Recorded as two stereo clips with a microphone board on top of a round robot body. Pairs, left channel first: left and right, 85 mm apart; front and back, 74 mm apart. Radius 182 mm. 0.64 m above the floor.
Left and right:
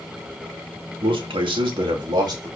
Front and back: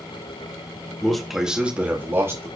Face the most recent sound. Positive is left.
turn(degrees=-130)